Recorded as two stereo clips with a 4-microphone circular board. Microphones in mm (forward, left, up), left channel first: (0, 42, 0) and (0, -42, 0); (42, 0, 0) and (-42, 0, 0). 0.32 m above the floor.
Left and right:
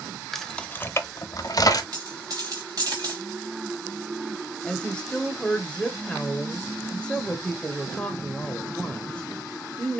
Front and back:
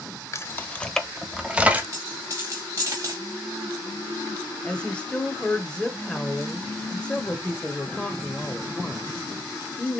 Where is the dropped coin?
135° right, 4 m.